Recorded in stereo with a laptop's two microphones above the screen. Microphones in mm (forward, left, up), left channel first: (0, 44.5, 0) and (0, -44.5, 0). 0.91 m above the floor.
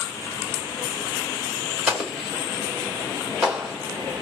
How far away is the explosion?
About 3 m.